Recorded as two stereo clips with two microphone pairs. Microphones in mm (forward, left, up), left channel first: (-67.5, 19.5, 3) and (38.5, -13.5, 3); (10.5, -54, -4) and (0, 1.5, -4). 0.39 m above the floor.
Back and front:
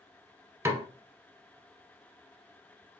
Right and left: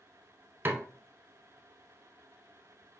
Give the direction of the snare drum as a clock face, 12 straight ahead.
10 o'clock.